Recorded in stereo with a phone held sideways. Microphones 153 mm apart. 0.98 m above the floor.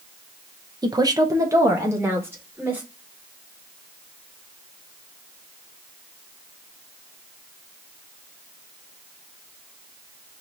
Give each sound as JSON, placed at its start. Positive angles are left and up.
{"t": 0.8, "sound": "a woman speaking", "side_deg": -25, "distance_m": 0.7}